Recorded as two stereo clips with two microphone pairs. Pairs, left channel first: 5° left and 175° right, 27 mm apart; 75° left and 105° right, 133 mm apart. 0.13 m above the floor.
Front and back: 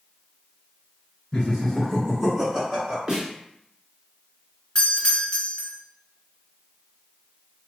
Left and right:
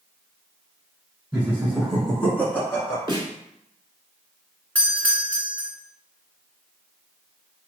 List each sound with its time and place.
1.3 s laughter: 40° right, 1.7 m; by 3.0 s 140° left, 2 m
3.1 s a snare drum: 135° right, 1.3 m
4.8 s a doorbell: 10° left, 1.7 m